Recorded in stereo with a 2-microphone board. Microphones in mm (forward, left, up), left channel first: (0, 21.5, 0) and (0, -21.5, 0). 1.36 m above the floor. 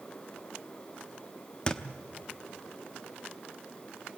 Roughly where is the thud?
Left.